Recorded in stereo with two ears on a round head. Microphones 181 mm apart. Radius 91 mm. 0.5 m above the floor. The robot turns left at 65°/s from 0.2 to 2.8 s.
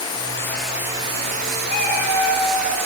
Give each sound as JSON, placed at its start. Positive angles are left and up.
{"t": 0.0, "sound": "running water", "azimuth_deg": 30, "distance_m": 0.8}
{"t": 1.7, "sound": "a cat meowing", "azimuth_deg": 45, "distance_m": 0.7}